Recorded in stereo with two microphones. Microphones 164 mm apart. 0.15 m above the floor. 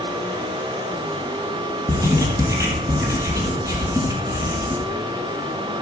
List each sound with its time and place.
1.9 s writing: 20° right (ahead or behind), 3.5 m